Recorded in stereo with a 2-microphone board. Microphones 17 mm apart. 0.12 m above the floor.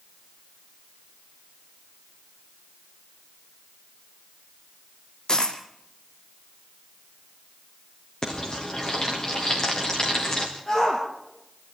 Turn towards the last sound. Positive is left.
turn(degrees=45)  # may be behind; listen again after turning